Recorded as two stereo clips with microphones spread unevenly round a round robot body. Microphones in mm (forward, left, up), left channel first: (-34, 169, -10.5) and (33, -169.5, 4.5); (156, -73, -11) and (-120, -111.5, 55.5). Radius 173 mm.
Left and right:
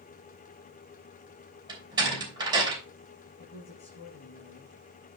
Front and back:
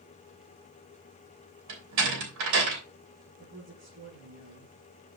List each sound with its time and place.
1.7 s a door slam: 155° right, 3 m
3.4 s a woman speaking: 150° left, 6 m